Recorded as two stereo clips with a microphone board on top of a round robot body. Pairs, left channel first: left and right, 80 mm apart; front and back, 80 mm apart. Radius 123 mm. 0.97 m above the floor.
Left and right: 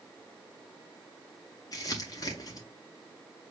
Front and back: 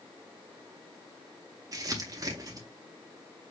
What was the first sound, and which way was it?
Crumpling, 135° left.